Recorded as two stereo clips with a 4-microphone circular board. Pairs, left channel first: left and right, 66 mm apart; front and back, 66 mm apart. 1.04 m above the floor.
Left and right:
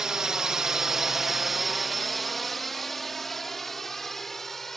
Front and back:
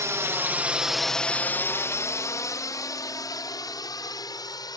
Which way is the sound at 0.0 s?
165° right.